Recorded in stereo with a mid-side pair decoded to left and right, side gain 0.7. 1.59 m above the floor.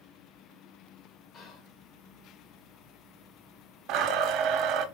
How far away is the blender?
About 1.0 m.